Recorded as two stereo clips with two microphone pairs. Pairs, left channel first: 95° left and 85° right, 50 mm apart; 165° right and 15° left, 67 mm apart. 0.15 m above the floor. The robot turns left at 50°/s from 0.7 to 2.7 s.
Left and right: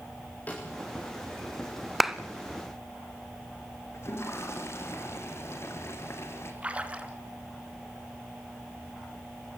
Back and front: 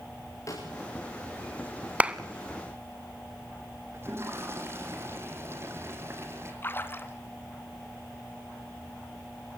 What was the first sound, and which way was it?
A snare drum, 155° left.